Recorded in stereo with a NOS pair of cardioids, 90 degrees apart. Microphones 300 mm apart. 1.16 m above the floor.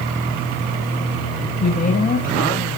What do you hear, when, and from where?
1.6 s a woman speaking: 30° left, 7.5 m; by 2.6 s 25° left, 9 m